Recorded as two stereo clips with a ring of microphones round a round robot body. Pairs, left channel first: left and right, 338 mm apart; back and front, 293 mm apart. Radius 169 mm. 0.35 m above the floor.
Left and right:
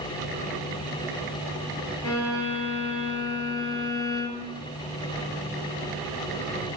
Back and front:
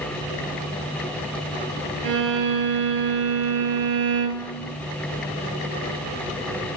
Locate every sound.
2.0 s a violin: 10° left, 2 m